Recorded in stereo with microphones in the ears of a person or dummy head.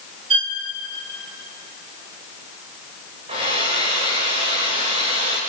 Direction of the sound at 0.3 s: 35° right (ahead or behind).